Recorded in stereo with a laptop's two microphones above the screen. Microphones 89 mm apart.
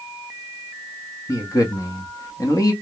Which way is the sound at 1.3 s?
40° left (ahead or behind).